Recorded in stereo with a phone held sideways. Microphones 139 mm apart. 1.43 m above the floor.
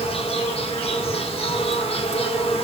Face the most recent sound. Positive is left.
turn(degrees=40)  # may be behind; listen again after turning